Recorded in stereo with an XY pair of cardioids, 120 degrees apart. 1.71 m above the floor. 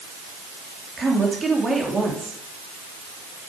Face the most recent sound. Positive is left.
turn(degrees=-30)